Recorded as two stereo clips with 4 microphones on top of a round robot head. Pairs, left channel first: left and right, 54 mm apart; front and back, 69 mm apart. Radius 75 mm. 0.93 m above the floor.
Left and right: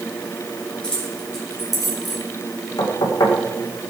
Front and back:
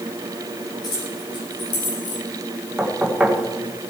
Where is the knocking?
105° left, 2.5 m.